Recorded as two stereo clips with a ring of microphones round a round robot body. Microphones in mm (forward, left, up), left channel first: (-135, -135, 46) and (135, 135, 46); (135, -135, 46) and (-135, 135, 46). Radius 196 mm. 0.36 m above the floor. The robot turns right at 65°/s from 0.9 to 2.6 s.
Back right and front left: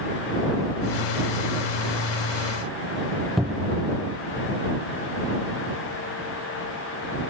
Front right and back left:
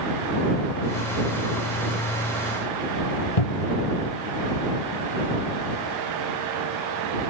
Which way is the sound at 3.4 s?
45° right.